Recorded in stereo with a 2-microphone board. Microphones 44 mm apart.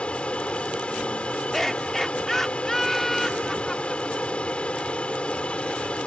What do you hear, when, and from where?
0.0 s an aircraft: 25° left (ahead or behind)
1.5 s laughter: 10° left (ahead or behind)